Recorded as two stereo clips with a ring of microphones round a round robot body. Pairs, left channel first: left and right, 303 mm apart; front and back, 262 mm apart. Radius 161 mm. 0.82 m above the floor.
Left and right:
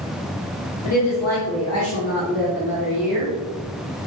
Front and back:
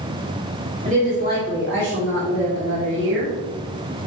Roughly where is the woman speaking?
Behind left.